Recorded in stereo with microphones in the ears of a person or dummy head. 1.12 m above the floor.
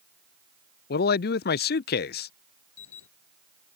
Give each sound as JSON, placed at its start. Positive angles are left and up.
{"t": 0.9, "sound": "a man speaking", "side_deg": 40}
{"t": 2.8, "sound": "an alarm", "side_deg": 75}